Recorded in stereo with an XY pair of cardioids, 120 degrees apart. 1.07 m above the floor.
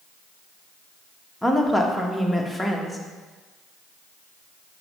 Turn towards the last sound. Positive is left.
turn(degrees=0)